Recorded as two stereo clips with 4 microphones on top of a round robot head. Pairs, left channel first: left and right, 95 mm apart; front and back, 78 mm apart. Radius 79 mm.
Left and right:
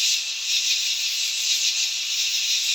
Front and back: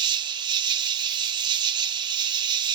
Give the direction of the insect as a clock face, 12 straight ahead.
6 o'clock.